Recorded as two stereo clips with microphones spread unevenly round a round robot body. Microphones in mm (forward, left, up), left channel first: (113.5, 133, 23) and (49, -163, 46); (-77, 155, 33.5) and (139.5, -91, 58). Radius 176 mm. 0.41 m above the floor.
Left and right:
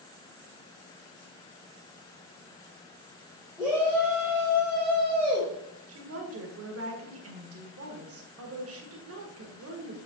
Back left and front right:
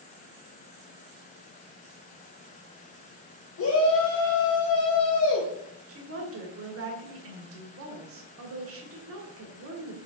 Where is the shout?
170° left, 1.3 m.